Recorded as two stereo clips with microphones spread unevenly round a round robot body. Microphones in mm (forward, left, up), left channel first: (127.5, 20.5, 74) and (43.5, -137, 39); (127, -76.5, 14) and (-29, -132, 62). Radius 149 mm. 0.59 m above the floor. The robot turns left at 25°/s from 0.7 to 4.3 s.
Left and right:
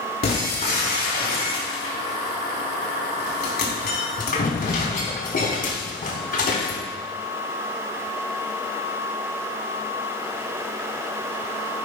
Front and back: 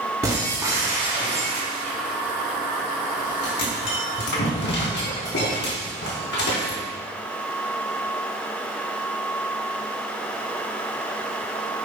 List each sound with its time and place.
0.2 s breaking glass: 115° left, 4 m; by 6.8 s 25° left, 4 m